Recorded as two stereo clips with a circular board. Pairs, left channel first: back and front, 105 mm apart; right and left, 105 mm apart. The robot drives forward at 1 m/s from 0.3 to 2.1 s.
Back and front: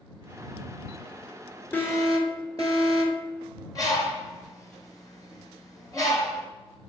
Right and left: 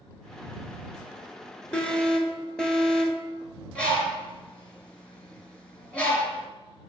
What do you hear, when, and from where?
1.7 s an alarm: 150° right, 0.8 m; by 3.2 s 170° right, 1.0 m
3.8 s a bird: 160° right, 1.0 m